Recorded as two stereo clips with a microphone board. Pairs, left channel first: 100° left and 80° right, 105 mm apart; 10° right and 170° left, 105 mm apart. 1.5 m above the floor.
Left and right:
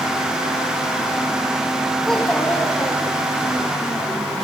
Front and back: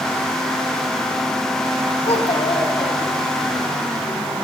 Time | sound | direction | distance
2.0 | a child speaking | 15° left | 2.0 m